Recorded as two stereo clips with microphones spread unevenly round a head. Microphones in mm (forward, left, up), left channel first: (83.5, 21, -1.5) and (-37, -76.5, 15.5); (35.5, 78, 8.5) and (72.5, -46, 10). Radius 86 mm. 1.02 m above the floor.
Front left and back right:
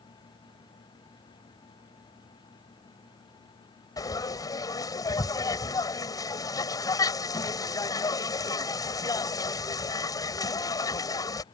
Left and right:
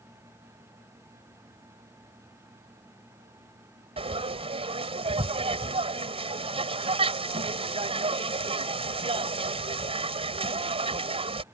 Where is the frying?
30° right.